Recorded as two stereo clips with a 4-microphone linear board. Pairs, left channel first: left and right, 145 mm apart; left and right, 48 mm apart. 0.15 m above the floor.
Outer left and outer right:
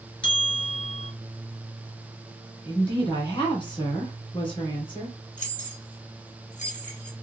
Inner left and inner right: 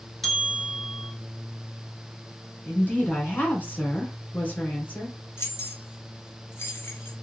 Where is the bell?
10° left (ahead or behind), 1.4 m.